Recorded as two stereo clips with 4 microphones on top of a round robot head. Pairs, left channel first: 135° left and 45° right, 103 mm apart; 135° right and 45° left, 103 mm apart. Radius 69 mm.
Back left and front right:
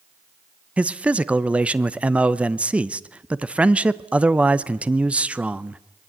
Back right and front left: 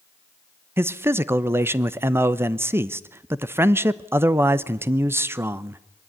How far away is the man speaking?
About 0.8 m.